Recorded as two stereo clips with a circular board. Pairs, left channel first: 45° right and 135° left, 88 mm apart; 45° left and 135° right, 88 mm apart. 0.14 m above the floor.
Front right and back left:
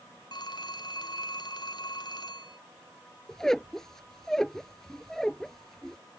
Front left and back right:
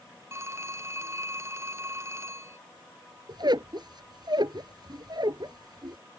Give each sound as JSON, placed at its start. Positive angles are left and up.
{"t": 0.3, "sound": "a phone ringing", "azimuth_deg": -80}
{"t": 3.3, "sound": "a squeak", "azimuth_deg": -130}